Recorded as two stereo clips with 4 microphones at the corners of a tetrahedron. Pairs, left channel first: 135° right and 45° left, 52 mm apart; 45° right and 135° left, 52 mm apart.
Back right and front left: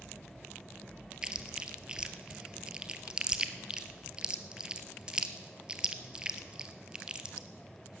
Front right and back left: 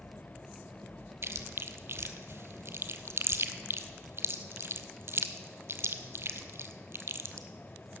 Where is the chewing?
115° left, 0.8 m.